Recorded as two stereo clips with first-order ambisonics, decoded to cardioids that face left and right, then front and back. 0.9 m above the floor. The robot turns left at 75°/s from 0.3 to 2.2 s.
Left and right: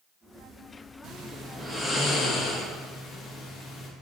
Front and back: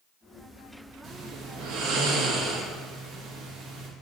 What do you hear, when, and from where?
1.0 s snoring: 120° right, 1.1 m; by 3.9 s 150° left, 1.1 m